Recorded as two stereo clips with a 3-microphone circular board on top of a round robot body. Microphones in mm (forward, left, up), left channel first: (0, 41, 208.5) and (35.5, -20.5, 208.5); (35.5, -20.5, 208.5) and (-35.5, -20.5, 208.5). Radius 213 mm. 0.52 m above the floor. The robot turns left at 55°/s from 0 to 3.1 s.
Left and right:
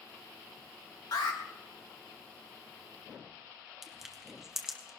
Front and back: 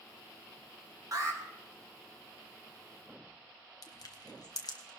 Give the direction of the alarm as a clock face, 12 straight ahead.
7 o'clock.